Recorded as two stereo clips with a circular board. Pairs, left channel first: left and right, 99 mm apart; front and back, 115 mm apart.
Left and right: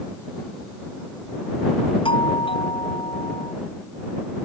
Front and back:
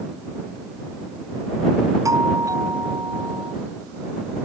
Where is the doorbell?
120° left.